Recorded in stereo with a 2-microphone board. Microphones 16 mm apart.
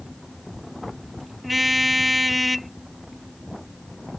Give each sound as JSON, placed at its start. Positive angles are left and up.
{"t": 1.4, "sound": "a car horn", "side_deg": -5}